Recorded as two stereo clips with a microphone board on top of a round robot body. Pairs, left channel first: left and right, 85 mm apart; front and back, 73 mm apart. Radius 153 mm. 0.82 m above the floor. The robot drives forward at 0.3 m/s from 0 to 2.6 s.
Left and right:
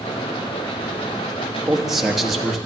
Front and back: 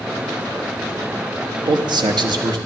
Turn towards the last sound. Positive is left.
turn(degrees=-175)